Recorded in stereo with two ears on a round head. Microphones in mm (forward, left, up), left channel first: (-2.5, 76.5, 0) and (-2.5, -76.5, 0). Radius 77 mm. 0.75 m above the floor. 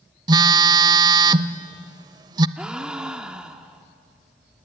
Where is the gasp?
5° right (ahead or behind), 1.0 m.